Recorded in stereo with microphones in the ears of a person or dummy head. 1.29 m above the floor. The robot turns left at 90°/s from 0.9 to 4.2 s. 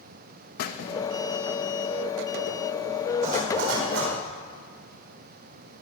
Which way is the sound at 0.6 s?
50° left (ahead or behind).